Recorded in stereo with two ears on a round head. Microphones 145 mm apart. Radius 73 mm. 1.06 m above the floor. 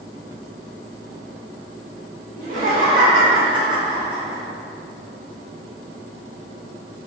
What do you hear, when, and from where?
2.4 s laughter: 55° right (ahead or behind), 1.2 m; by 4.4 s 5° right (ahead or behind), 1.1 m